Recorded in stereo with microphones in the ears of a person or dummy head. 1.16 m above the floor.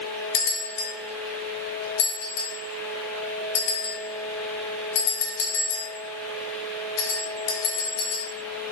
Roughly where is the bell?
Left.